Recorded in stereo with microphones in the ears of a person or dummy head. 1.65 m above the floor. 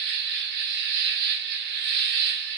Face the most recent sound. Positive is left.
turn(degrees=-60)  # may be behind; listen again after turning